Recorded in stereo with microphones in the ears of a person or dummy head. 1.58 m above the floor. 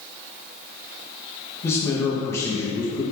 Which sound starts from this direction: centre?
A man speaking, at 1.6 s.